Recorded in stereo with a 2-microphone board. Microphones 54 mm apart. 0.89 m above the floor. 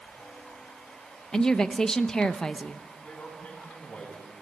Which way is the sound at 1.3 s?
10° left (ahead or behind).